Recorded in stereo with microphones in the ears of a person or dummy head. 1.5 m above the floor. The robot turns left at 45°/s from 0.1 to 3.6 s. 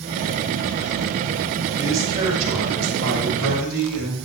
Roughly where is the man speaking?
Ahead.